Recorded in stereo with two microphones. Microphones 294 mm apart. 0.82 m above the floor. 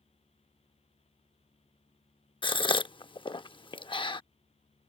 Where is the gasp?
15° left (ahead or behind).